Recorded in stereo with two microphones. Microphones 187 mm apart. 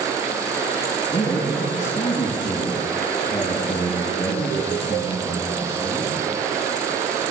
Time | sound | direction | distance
1.1 | a man speaking | 25° left (ahead or behind) | 7.5 m